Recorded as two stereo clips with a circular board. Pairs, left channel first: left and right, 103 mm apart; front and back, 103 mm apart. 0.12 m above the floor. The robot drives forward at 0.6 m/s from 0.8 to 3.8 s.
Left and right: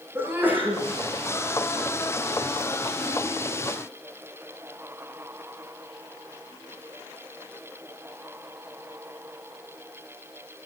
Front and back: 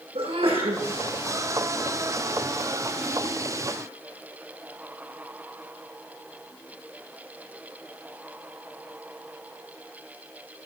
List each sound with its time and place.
0.1 s a sneeze: 160° right, 8.5 m